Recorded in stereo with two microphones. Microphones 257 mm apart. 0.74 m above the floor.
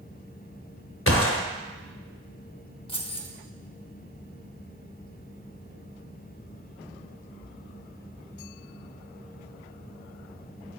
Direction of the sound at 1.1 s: 60° left (ahead or behind).